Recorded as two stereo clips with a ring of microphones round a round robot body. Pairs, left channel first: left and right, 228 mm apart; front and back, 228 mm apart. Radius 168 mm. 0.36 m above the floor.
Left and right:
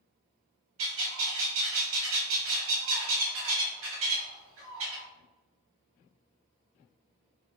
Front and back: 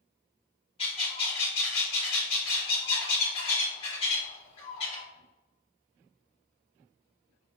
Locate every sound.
0.8 s a bird: 70° right, 1.2 m